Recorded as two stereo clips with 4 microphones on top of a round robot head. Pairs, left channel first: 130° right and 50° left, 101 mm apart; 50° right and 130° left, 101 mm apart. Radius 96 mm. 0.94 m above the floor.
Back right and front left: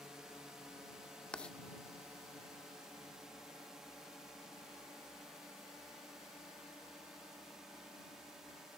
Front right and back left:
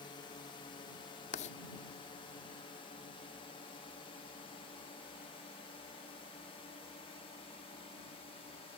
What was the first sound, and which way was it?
A drone, 35° right.